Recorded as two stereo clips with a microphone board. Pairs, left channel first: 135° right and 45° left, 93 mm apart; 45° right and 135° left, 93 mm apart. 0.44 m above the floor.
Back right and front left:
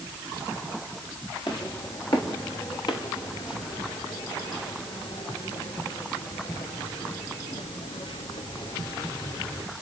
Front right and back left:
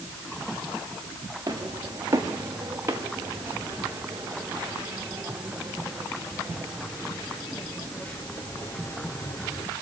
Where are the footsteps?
175° right, 5 m; by 9.7 s 95° right, 2.5 m.